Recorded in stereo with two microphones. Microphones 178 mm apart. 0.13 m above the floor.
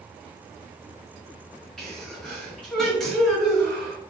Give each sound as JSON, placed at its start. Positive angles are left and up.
{"t": 1.8, "sound": "a sneeze", "side_deg": 0, "distance_m": 1.7}